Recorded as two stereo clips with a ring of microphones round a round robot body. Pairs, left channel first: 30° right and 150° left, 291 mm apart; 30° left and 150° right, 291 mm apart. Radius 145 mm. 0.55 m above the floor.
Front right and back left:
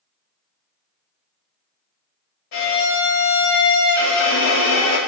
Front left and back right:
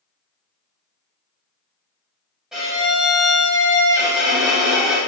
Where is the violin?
60° right, 1.9 m.